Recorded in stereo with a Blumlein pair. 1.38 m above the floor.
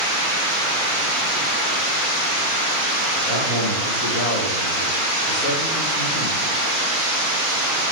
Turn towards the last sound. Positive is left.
turn(degrees=5)